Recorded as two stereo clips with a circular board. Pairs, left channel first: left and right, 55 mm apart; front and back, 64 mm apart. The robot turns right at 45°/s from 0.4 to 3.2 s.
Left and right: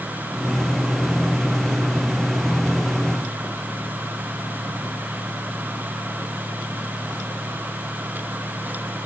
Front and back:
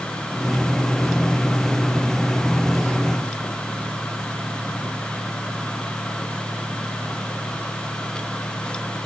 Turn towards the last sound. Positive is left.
No sound to turn to.